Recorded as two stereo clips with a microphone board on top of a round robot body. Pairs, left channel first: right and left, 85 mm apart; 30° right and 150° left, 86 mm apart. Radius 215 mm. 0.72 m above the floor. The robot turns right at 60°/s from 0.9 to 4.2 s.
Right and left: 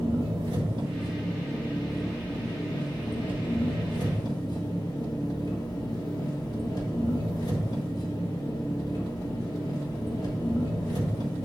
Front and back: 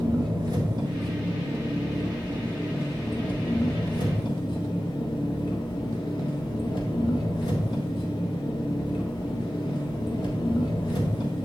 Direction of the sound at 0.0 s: 115° left.